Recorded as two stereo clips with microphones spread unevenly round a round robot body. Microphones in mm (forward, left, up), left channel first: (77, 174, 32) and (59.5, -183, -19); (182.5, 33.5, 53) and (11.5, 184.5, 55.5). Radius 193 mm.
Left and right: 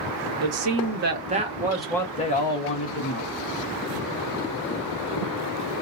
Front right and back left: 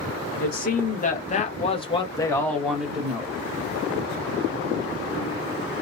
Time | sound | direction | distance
0.4 | a man speaking | 80° right | 1.2 m